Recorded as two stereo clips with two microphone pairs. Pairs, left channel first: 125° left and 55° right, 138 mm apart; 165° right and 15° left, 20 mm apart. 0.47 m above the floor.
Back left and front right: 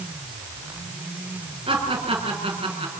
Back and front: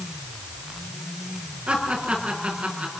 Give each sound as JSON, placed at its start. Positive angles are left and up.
{"t": 1.7, "sound": "laughter", "azimuth_deg": -5, "distance_m": 8.5}